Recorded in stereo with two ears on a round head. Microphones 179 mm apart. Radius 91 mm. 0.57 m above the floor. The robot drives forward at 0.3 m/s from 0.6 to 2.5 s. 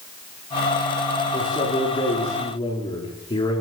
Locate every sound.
1.3 s a man speaking: 25° left (ahead or behind), 8.5 m; by 3.6 s 20° left (ahead or behind), 9 m